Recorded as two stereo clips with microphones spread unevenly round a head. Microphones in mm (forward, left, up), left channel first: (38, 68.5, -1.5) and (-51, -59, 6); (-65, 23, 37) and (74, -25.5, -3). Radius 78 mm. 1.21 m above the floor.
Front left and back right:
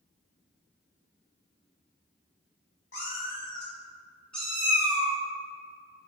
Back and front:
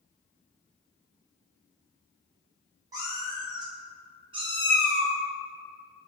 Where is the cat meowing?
55° left, 1.5 m; by 5.2 s 100° right, 1.1 m.